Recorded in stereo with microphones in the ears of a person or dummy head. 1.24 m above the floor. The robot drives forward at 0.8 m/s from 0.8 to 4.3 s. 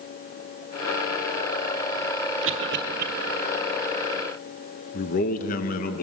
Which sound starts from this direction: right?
A cough, at 2.4 s.